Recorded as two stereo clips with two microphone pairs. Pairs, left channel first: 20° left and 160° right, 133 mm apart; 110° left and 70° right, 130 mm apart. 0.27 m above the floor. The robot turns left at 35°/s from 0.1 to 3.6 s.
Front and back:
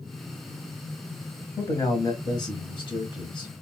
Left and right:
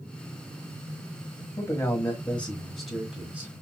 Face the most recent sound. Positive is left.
turn(degrees=-5)